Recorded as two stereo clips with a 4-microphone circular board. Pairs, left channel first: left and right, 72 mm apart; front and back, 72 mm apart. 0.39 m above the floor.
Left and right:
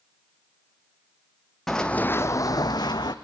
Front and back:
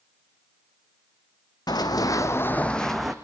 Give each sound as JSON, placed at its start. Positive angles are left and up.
{"t": 1.7, "sound": "running footsteps", "azimuth_deg": 5, "distance_m": 1.4}